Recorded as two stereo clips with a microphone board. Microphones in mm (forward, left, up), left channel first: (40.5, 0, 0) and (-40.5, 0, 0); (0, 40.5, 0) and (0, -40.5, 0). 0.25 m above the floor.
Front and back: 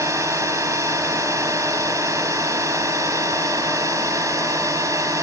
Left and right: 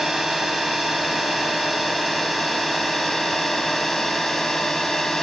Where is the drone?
175° right; by 5.2 s 175° left.